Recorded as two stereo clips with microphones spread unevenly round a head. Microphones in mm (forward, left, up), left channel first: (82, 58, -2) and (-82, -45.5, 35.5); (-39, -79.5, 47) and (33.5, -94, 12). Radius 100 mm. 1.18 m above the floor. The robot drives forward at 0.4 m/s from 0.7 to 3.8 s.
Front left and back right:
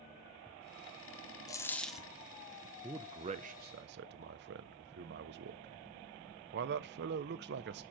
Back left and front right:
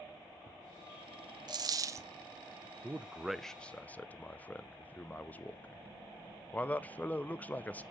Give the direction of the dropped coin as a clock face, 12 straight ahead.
2 o'clock.